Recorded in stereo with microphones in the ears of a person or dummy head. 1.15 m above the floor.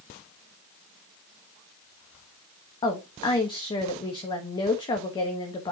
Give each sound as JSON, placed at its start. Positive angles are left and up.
{"t": 2.8, "sound": "a woman speaking", "side_deg": 20, "distance_m": 1.3}